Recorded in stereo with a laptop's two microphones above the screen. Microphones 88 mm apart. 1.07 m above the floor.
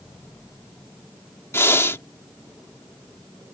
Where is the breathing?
30° left (ahead or behind).